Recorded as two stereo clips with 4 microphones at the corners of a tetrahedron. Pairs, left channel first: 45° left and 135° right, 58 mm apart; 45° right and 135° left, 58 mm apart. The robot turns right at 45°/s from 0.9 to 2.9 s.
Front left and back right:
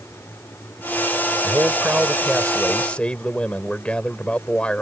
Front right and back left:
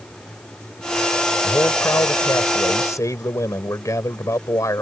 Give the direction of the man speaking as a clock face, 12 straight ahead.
3 o'clock.